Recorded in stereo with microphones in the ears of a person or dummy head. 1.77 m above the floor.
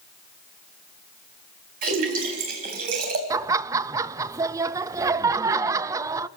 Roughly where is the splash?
Right.